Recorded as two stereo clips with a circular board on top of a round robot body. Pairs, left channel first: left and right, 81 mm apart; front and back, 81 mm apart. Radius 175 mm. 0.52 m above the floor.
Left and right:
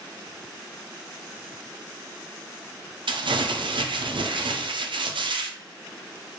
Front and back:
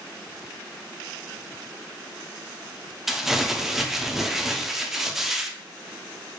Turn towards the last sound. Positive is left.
turn(degrees=-95)